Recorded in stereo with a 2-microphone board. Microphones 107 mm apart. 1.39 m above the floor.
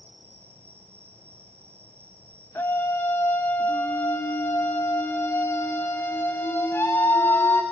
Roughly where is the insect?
Right.